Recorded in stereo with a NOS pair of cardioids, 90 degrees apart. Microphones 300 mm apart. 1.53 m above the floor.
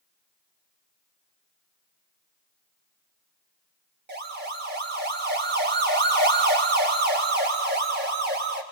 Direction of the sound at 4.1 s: 35° right.